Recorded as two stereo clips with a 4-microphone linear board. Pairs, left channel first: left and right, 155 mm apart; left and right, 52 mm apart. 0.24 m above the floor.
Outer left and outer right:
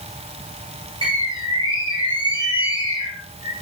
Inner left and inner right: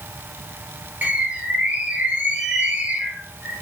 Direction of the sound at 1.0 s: 35° right (ahead or behind).